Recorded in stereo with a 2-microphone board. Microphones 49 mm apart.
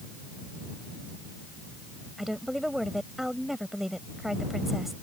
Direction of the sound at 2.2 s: 5° right (ahead or behind).